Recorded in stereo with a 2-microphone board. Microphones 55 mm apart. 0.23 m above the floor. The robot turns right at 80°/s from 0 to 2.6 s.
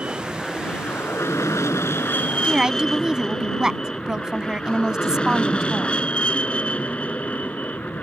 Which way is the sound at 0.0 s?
25° right (ahead or behind).